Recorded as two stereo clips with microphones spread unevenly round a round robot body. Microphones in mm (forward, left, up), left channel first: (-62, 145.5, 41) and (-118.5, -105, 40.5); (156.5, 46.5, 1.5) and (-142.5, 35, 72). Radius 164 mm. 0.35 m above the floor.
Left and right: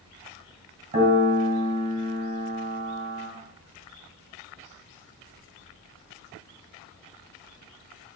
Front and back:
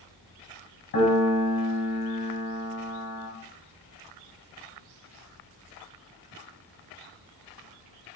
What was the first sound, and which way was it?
A piano, 40° right.